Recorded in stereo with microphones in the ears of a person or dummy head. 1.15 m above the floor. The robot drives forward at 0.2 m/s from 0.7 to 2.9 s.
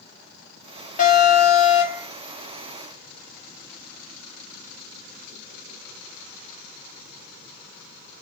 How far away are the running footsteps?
No running footsteps in this recording.